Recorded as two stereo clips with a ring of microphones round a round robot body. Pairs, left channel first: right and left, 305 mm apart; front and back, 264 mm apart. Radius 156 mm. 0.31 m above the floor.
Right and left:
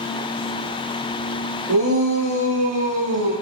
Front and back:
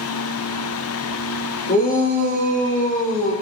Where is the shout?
60° left, 8.5 m.